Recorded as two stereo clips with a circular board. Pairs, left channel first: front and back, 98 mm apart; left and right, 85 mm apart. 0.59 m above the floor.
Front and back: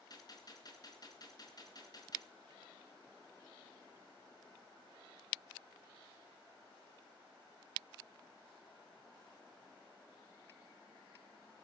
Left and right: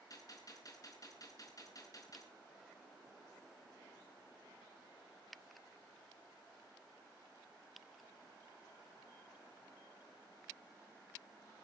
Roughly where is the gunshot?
Ahead left.